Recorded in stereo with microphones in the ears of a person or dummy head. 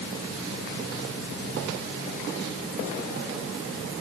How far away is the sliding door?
No sliding door in this recording.